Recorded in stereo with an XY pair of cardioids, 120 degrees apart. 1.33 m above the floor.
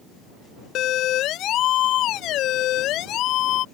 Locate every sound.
0.8 s a siren: 65° left; by 3.6 s 70° left